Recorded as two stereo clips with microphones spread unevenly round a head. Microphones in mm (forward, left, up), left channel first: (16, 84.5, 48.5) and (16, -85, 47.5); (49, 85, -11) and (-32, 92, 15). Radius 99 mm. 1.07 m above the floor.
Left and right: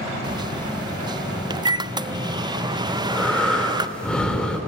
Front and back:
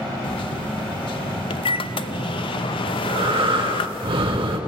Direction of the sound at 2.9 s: 175° left.